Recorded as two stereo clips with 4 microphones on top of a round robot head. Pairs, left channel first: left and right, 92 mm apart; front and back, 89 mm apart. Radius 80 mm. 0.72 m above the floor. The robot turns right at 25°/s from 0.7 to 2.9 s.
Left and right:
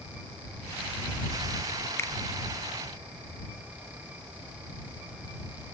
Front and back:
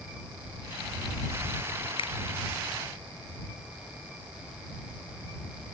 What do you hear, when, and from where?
2.0 s a finger snap: 25° left; by 2.1 s 30° left